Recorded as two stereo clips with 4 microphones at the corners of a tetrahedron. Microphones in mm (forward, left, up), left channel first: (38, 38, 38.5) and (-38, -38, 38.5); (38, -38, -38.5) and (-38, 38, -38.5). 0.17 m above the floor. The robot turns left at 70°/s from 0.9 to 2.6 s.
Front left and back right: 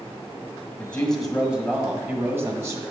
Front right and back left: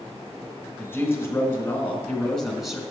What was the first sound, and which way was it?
A woman speaking, 20° right.